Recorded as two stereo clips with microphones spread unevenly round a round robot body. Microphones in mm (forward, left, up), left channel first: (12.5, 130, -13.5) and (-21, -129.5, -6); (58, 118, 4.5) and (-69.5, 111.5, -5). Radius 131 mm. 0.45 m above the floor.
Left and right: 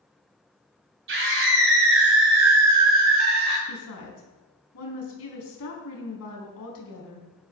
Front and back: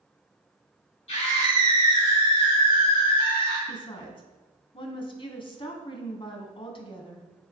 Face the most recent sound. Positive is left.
turn(degrees=50)